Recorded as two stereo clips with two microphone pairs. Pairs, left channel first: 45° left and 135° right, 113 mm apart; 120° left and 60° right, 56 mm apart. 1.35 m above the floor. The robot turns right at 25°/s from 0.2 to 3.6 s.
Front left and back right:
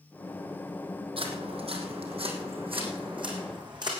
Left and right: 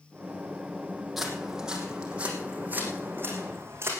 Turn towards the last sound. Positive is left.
turn(degrees=-95)